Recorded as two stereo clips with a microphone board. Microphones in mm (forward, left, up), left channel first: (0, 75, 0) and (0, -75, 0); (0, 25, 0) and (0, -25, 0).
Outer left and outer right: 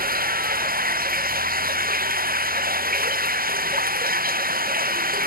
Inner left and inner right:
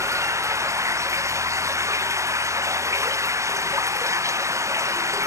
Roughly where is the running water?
Right.